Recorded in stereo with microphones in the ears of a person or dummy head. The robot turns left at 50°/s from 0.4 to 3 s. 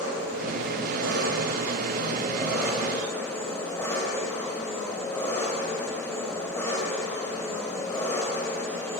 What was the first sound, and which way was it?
An engine running, 65° right.